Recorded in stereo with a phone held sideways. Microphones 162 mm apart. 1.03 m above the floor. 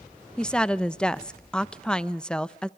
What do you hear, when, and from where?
0.4 s a woman speaking: 5° left (ahead or behind), 0.6 m